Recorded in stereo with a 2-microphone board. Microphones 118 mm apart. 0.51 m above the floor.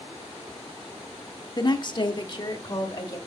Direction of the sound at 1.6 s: 35° left (ahead or behind).